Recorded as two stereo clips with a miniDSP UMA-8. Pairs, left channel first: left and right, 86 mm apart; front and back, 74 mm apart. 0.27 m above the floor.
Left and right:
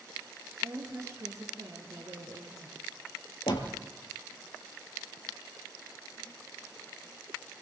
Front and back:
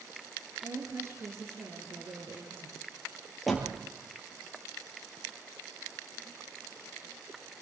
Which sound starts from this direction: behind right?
A woman speaking, at 0.6 s.